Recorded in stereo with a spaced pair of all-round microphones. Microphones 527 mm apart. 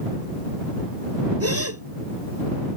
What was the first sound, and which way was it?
A gasp, 30° right (ahead or behind).